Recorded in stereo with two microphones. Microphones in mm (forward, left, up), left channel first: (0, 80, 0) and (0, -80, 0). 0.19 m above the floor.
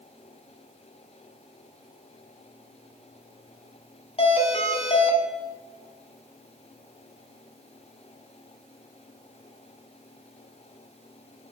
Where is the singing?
I don't hear singing.